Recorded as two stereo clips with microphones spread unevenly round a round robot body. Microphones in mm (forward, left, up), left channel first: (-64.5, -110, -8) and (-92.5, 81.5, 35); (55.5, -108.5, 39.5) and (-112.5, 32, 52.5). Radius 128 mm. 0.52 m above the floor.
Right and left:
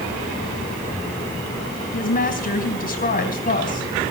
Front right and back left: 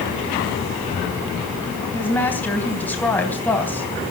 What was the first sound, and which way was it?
A woman speaking, 120° right.